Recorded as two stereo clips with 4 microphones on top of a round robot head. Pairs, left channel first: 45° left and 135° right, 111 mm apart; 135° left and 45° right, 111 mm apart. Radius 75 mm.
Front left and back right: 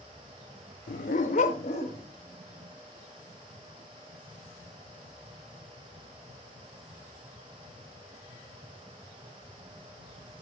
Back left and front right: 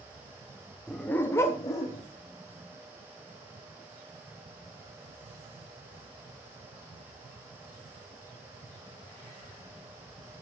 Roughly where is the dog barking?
Ahead left.